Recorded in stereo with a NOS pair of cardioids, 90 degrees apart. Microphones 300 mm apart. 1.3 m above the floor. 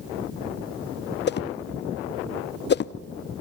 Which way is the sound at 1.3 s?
35° left.